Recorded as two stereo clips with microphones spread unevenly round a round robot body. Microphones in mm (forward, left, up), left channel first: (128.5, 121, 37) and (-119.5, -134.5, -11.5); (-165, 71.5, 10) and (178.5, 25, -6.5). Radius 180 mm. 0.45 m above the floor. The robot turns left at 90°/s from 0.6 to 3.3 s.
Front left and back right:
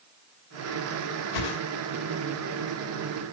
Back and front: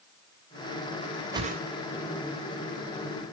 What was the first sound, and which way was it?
A whoosh, 70° left.